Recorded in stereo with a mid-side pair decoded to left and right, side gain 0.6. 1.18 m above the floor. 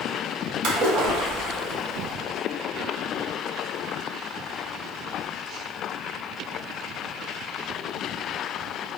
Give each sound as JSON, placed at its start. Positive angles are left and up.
{"t": 0.6, "sound": "a splash", "azimuth_deg": -65, "distance_m": 1.1}